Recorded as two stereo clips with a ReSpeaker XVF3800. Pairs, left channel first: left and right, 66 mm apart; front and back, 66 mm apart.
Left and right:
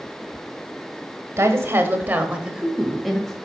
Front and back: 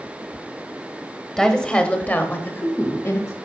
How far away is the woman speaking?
About 1.3 m.